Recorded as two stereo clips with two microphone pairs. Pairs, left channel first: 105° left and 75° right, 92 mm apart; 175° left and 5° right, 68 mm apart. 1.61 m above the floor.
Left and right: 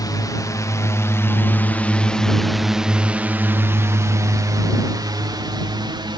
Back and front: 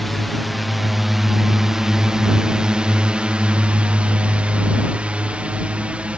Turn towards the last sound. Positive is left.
turn(degrees=-75)